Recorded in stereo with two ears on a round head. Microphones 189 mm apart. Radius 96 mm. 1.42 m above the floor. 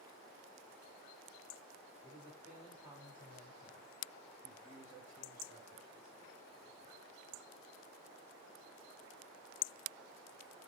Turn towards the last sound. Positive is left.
turn(degrees=-20)  # may be behind; listen again after turning